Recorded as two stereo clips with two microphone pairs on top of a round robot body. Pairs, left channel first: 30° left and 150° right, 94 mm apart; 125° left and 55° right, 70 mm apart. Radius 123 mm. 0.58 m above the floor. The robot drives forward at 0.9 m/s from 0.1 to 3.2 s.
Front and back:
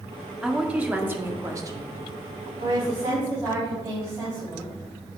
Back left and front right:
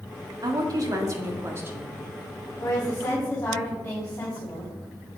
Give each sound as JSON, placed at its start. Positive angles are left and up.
{"t": 0.4, "sound": "a woman speaking", "azimuth_deg": -70, "distance_m": 2.0}
{"t": 2.6, "sound": "a woman speaking", "azimuth_deg": 170, "distance_m": 5.0}